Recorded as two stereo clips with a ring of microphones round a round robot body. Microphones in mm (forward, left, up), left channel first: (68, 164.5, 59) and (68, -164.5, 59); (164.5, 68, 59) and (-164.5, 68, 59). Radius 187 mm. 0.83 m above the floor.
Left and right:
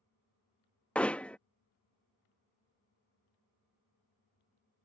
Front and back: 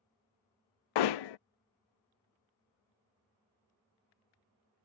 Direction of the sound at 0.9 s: 5° left.